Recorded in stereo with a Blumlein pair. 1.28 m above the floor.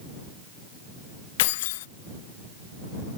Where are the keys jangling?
55° left.